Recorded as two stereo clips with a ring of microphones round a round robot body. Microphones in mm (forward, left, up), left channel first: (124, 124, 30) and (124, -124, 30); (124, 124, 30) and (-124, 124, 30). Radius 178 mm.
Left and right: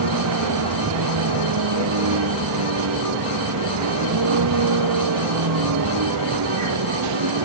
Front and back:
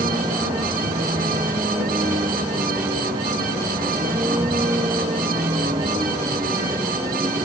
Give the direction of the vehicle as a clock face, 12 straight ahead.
3 o'clock.